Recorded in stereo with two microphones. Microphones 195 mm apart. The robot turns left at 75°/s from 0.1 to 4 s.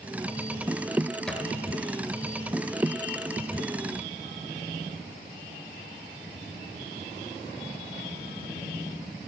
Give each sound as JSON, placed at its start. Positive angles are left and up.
{"t": 1.3, "sound": "a thud", "side_deg": 5, "distance_m": 1.5}